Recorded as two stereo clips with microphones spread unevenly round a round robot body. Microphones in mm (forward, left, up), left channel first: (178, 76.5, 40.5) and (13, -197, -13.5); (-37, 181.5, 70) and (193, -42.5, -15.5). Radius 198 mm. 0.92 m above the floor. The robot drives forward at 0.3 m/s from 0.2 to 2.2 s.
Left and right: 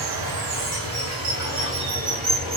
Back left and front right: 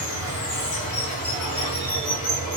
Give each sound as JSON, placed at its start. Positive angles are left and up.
{"t": 0.0, "sound": "running water", "azimuth_deg": -165, "distance_m": 1.1}